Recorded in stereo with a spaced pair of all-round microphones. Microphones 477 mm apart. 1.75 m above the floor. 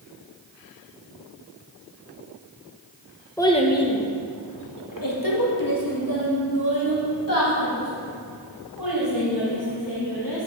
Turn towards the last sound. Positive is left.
turn(degrees=45)  # may be behind; listen again after turning